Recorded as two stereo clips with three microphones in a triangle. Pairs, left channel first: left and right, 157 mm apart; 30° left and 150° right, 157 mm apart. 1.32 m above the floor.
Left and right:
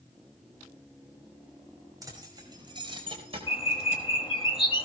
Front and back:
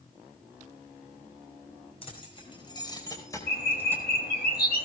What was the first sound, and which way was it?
Keys jangling, 25° right.